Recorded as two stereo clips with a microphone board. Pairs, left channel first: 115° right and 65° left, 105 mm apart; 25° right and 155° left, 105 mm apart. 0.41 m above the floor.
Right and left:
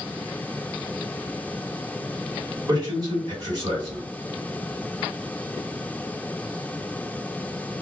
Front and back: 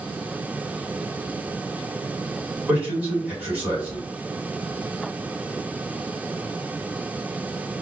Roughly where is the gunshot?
I don't hear a gunshot.